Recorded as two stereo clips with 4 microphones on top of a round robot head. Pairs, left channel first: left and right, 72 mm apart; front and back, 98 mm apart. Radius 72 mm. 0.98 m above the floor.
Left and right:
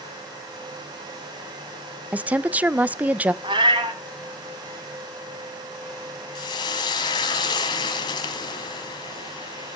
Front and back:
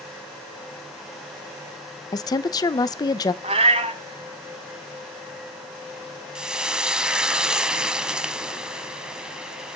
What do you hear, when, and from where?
2.1 s a woman speaking: 30° right, 0.7 m
3.4 s a cat meowing: 135° right, 1.3 m
6.3 s frying: 100° left, 1.4 m